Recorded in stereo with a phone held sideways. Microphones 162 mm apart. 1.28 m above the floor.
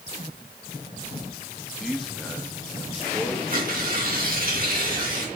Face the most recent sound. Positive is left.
turn(degrees=-60)  # may be behind; listen again after turning